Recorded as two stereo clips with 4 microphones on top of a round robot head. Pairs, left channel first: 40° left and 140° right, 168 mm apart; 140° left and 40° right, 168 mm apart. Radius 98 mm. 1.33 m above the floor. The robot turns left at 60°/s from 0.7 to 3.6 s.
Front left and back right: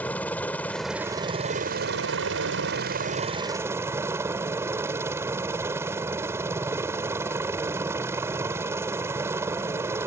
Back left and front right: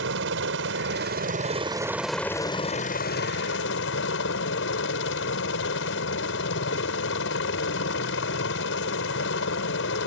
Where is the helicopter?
45° right; by 10.1 s 140° left.